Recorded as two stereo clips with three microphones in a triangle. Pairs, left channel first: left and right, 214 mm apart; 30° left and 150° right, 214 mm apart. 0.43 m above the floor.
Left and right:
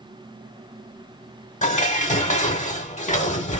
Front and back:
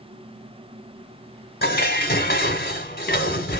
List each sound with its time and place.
1.6 s dishes clattering: 50° left, 0.9 m